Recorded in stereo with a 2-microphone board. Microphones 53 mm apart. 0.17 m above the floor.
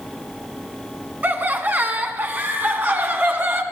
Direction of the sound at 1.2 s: 35° right (ahead or behind).